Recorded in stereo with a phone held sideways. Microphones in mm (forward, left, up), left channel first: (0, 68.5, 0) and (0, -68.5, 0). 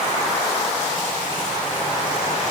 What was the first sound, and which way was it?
Only background noise.